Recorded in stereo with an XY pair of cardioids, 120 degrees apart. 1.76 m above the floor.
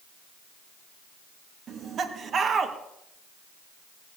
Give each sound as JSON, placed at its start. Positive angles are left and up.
{"t": 1.7, "sound": "laughter", "azimuth_deg": -45, "distance_m": 2.5}